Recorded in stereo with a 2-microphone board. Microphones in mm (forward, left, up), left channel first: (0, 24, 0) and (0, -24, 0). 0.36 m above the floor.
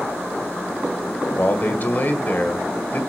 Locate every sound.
1.4 s a man speaking: 40° left (ahead or behind), 1.7 m